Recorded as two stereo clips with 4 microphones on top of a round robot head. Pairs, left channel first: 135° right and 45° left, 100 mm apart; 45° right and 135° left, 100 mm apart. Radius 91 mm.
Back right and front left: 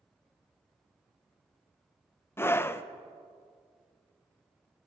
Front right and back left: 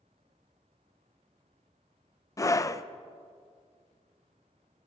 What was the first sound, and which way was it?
A scream, 80° right.